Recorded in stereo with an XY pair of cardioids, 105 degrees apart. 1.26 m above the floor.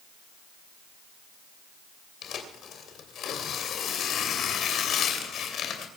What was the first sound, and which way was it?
Tearing paper, 65° left.